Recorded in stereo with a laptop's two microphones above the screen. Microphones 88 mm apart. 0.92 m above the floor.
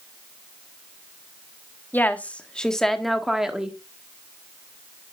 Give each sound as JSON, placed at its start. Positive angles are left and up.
{"t": 1.9, "sound": "a woman speaking", "side_deg": 20, "distance_m": 1.7}